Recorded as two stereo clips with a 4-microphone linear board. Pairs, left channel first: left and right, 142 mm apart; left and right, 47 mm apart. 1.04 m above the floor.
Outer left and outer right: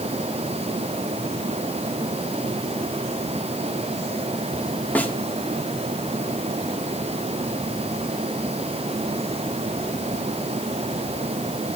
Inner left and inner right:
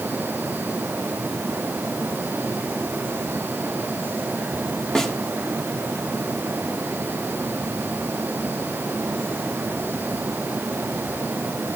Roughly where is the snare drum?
Centre.